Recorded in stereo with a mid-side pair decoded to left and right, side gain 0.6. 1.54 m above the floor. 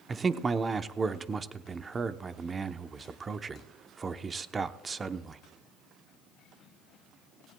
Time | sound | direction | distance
0.1 | a man speaking | 30° right | 0.9 m